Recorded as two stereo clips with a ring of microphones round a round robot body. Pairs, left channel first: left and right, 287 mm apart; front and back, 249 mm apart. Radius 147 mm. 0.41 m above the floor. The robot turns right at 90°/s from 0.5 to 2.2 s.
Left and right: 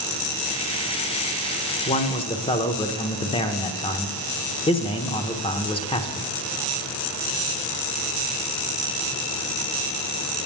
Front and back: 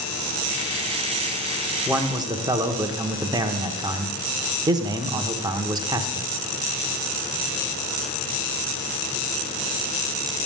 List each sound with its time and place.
1.9 s a man speaking: 100° left, 0.8 m; by 6.3 s 130° left, 0.8 m